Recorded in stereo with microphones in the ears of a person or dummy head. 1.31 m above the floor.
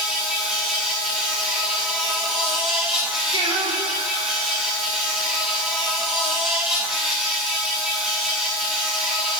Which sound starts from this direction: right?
Singing, at 3.3 s.